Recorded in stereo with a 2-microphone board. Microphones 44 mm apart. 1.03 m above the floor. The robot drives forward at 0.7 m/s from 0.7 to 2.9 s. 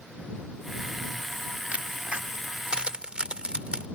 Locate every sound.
1.7 s a crack: 35° right (ahead or behind); by 3.9 s 25° right (ahead or behind)